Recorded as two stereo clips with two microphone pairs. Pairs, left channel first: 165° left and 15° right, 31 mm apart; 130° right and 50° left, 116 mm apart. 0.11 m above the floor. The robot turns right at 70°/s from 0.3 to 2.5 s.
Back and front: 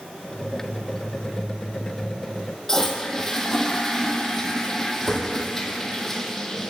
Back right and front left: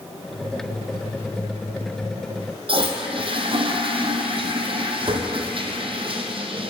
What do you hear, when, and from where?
2.7 s a toilet flushing: 90° left, 1.0 m